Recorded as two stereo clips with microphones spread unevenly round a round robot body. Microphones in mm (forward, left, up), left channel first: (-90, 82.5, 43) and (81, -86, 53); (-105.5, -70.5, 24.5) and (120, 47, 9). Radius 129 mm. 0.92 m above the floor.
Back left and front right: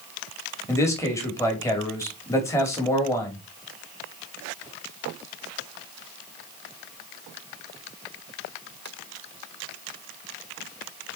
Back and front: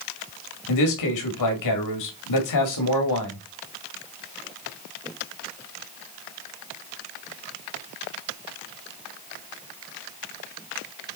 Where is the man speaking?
145° right, 2.5 m.